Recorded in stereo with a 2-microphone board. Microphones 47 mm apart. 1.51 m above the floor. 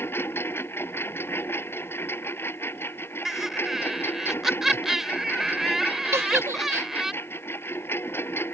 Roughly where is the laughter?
Centre.